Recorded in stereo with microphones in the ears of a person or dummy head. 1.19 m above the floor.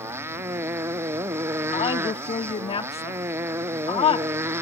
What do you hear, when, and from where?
0.0 s a motorcycle: 15° right (ahead or behind)
1.7 s a woman speaking: 30° left (ahead or behind)